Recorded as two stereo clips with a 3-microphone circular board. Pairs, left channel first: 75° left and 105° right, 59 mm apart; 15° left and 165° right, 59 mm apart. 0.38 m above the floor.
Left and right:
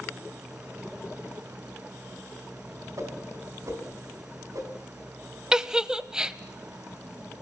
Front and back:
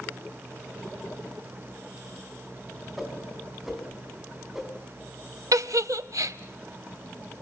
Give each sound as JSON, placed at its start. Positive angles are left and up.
{"t": 3.0, "sound": "a whoosh", "azimuth_deg": -80, "distance_m": 4.0}
{"t": 5.5, "sound": "a giggle", "azimuth_deg": 180, "distance_m": 0.8}